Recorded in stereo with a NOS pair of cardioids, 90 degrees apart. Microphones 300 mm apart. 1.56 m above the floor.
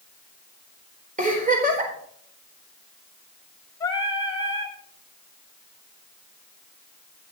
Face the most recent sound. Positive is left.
turn(degrees=15)